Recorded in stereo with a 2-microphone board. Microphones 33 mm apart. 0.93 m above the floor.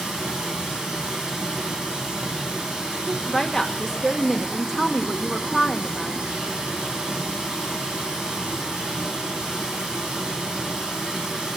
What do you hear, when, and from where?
0.0 s running water: 25° right (ahead or behind), 3.5 m
3.1 s a woman speaking: 5° left (ahead or behind), 1.3 m